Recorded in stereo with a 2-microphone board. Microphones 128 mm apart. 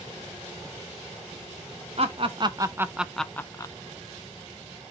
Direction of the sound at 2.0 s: 50° right (ahead or behind).